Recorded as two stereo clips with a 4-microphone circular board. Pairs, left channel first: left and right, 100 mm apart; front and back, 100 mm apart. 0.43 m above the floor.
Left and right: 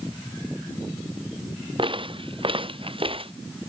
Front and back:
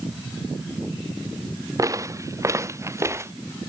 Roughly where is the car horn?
No car horn in this recording.